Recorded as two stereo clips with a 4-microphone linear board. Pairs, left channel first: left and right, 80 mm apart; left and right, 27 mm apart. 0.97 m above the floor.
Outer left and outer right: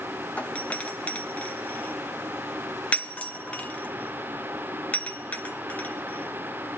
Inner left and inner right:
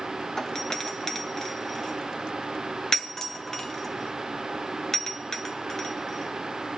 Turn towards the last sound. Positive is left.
turn(degrees=20)  # may be behind; listen again after turning